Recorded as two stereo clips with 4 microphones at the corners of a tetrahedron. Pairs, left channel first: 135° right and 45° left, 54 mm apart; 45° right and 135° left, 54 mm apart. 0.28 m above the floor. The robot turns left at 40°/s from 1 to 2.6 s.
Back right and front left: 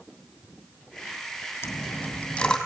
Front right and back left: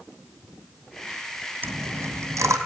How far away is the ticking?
No ticking in this recording.